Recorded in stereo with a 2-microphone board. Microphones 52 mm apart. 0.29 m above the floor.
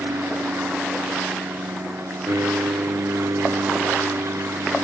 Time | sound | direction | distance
0.0 | an aircraft | 65° right (ahead or behind) | ?